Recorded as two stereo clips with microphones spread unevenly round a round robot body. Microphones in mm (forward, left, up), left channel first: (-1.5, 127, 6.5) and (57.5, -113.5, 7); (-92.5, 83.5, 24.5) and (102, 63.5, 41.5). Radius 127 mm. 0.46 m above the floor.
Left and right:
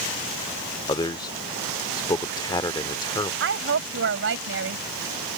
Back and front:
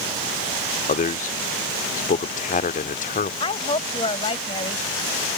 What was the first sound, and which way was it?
A man speaking, 170° left.